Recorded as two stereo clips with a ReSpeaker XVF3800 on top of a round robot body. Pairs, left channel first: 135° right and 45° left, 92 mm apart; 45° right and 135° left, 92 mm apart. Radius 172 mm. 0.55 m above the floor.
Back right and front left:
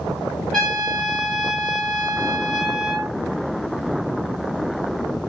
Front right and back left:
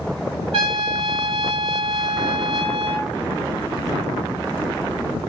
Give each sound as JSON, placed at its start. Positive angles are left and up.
{"t": 0.5, "sound": "a trumpet", "azimuth_deg": 140, "distance_m": 3.0}